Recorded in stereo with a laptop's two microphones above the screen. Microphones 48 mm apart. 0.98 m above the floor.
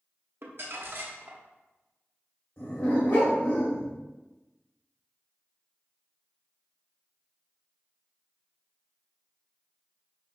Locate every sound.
0.4 s crumpling: 55° right (ahead or behind), 0.7 m
2.6 s a dog barking: 55° left (ahead or behind), 1.9 m